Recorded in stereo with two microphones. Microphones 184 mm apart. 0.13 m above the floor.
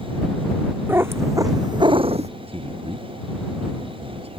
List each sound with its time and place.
0.9 s a cat meowing: 10° right (ahead or behind); by 2.3 s 35° right (ahead or behind)
2.5 s a man speaking: 30° right (ahead or behind)